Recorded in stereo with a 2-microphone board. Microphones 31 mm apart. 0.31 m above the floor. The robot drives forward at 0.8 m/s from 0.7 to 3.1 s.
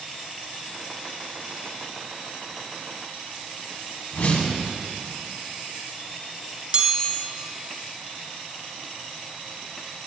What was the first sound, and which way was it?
A whoosh, 60° left (ahead or behind).